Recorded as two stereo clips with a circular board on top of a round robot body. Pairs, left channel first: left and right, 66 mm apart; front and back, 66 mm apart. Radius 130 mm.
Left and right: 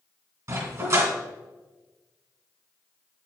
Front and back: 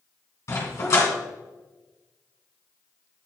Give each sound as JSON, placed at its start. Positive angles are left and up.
{"t": 0.5, "sound": "a dog barking", "azimuth_deg": -45, "distance_m": 2.5}